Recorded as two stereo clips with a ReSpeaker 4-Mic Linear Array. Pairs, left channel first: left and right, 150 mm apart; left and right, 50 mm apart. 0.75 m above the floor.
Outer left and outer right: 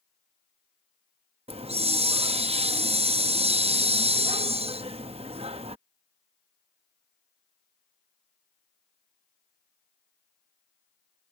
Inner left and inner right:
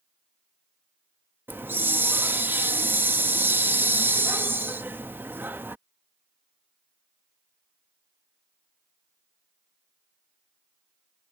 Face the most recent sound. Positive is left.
turn(degrees=-40)  # may be behind; listen again after turning